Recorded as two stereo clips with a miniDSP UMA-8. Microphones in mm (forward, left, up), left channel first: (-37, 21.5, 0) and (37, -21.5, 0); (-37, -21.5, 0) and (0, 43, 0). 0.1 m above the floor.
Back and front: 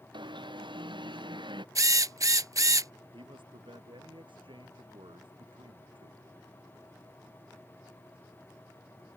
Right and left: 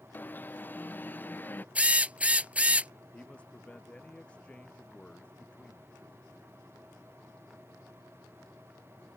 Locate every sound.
0.1 s an alarm: 55° right
1.8 s a drill: 5° right
3.1 s a man speaking: 45° right